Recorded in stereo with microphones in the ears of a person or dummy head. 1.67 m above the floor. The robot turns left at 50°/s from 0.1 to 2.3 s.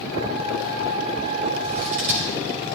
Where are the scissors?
35° right (ahead or behind), 1.7 m; by 2.3 s 30° right (ahead or behind), 1.7 m.